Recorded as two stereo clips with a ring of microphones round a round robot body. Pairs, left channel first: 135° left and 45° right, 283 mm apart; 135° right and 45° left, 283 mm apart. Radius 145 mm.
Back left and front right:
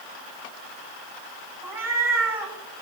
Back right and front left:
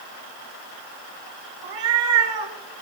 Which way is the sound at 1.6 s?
35° left.